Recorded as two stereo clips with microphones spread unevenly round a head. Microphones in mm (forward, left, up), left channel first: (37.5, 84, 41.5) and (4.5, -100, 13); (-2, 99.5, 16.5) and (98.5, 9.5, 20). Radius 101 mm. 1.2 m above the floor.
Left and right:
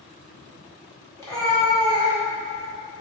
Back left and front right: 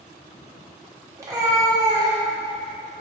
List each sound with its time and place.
1.2 s a cat meowing: 20° left, 0.9 m